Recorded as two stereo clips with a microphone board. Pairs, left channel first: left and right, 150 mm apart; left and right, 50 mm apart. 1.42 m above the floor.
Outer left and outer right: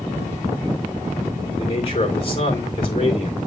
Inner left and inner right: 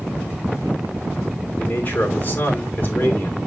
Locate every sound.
1.6 s a man speaking: 40° left (ahead or behind), 3.5 m